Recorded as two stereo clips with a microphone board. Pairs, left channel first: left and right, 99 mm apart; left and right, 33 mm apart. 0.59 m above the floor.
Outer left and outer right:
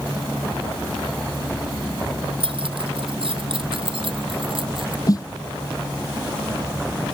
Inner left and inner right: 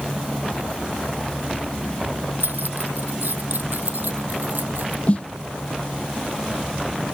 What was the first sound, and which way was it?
Keys jangling, 65° right (ahead or behind).